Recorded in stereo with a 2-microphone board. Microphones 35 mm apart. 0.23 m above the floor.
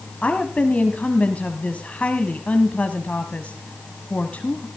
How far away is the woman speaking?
About 1.4 m.